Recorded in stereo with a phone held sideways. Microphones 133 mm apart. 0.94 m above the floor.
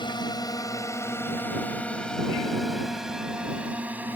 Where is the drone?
35° left (ahead or behind); by 4.2 s 15° right (ahead or behind).